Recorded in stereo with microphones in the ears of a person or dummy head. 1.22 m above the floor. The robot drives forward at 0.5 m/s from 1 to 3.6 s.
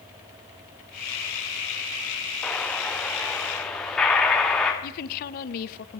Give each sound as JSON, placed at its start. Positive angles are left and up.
{"t": 2.4, "sound": "an explosion", "side_deg": -5, "distance_m": 1.3}
{"t": 4.8, "sound": "a woman speaking", "side_deg": 45, "distance_m": 0.7}